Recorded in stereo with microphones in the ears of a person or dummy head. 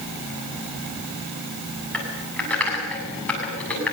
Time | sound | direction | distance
1.9 | typing on a keyboard | 5° left (ahead or behind) | 7.5 m